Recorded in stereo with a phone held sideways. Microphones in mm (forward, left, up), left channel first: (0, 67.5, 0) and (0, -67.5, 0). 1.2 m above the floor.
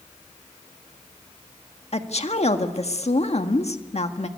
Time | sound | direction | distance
1.9 | a woman speaking | 55° left (ahead or behind) | 1.7 m